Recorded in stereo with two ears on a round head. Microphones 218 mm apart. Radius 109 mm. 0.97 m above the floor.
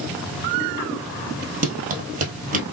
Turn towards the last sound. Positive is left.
turn(degrees=-35)  # may be behind; listen again after turning